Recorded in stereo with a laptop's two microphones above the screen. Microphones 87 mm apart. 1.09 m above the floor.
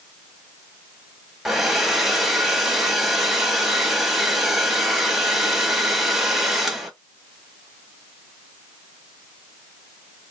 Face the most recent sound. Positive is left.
turn(degrees=-5)  # may be behind; listen again after turning